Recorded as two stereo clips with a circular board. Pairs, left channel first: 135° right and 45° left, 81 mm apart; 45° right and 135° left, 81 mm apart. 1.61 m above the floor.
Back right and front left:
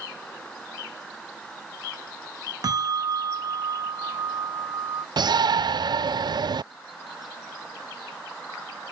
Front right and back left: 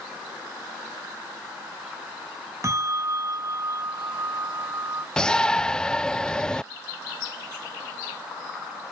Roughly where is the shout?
Ahead left.